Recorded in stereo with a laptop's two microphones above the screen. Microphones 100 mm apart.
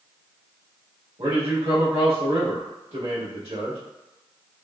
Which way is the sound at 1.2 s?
70° right (ahead or behind).